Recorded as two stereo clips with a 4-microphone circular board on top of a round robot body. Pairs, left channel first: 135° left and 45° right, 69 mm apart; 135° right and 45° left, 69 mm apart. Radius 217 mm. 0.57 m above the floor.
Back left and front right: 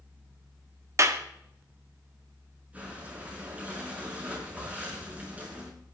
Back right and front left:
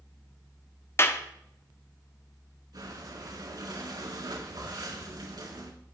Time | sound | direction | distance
1.0 | a clap | 85° right | 1.7 m
2.7 | breathing | 25° left | 6 m